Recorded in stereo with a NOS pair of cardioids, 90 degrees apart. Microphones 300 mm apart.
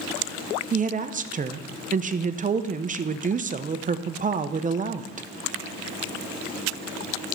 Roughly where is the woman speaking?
Ahead right.